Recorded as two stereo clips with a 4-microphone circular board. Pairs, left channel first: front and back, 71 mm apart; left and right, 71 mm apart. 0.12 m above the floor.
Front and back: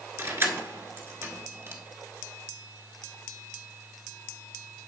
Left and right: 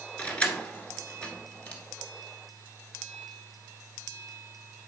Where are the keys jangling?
155° left, 1.2 m.